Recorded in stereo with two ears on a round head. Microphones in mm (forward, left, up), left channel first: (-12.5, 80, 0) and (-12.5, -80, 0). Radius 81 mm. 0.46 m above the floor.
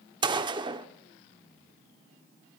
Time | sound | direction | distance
0.2 | a gunshot | 25° right (ahead or behind) | 0.7 m